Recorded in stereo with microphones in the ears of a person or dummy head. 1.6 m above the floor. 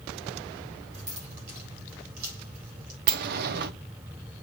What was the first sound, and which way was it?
Keys jangling, 50° right (ahead or behind).